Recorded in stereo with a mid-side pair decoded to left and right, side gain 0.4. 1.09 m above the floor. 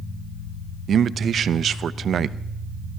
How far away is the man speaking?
About 0.7 m.